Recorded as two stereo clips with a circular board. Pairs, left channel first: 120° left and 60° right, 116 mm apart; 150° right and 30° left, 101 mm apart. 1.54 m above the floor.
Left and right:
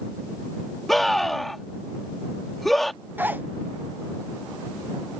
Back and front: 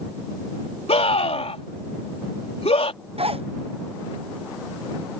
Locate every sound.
0.9 s a scream: 150° right
3.2 s a zipper: 15° left